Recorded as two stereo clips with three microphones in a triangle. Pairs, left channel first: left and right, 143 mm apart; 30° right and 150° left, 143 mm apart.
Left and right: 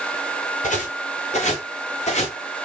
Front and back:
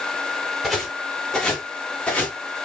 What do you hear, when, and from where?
0.6 s footsteps: 60° left, 5 m; by 2.4 s 50° left, 4 m